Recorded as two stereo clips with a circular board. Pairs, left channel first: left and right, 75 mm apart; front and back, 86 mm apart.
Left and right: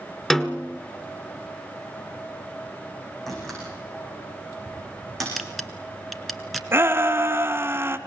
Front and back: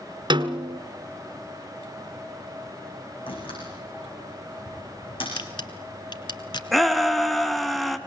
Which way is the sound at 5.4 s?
Straight ahead.